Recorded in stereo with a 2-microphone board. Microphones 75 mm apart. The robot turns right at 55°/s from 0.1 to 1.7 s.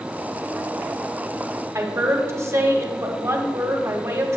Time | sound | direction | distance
1.8 | a woman speaking | 40° right (ahead or behind) | 1.4 m